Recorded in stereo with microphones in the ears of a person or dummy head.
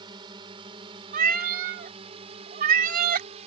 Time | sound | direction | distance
0.0 | a drone | 25° right (ahead or behind) | ?
1.1 | a cat meowing | 50° right (ahead or behind) | ?